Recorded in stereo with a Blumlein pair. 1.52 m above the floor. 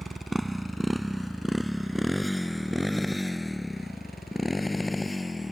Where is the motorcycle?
5° right; by 5.5 s 5° left.